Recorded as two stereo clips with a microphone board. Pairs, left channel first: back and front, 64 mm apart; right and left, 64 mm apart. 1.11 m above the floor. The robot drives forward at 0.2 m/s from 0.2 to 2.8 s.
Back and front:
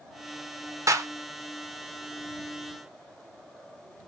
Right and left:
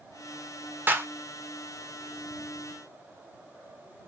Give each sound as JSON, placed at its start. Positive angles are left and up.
{"t": 0.9, "sound": "a clap", "azimuth_deg": 35, "distance_m": 0.6}